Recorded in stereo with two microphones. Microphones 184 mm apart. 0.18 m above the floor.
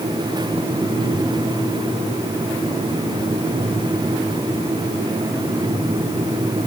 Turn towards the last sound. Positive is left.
No sound to turn to.